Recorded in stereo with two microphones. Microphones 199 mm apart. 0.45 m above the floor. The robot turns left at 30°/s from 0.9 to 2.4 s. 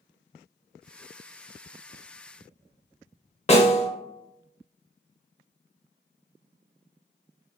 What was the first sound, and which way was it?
A snare drum, 35° left (ahead or behind).